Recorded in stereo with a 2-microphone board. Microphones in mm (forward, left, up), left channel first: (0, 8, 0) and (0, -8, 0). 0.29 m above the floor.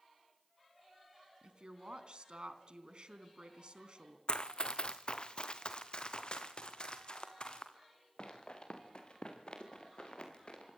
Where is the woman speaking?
55° right (ahead or behind), 3 m.